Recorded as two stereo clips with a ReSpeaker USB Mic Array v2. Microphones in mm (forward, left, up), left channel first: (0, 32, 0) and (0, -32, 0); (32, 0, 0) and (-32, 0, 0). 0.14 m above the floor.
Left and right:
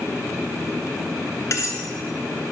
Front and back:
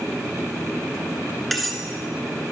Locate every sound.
1.5 s cutlery clinking: 90° left, 1.1 m